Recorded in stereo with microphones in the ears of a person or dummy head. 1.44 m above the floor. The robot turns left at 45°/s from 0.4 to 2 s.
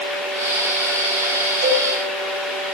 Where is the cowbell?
50° right (ahead or behind), 8 m; by 1.9 s 35° right (ahead or behind), 8 m.